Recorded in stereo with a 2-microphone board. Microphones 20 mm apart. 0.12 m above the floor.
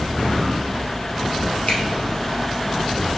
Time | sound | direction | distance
1.7 | a finger snap | 55° left (ahead or behind) | 1.8 m